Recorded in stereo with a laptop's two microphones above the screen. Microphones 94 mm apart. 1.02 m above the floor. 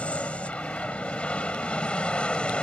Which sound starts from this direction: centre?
An aircraft, at 0.0 s.